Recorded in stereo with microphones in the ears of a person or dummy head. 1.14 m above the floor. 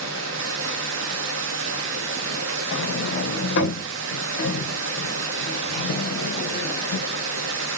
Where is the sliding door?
65° left (ahead or behind), 0.7 m.